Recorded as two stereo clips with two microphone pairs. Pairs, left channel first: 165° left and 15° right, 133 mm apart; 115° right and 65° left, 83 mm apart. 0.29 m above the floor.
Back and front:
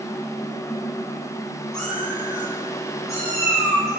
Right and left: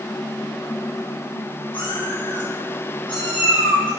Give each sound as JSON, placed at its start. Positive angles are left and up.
{"t": 1.7, "sound": "a cat meowing", "azimuth_deg": -110, "distance_m": 1.7}